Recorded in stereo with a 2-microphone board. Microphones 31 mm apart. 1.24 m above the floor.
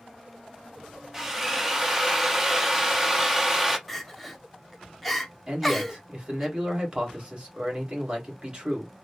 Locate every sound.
1.1 s a drill: 15° right (ahead or behind), 0.7 m
3.9 s crying: centre (ahead or behind), 0.7 m
5.5 s a man speaking: 35° right (ahead or behind), 1.8 m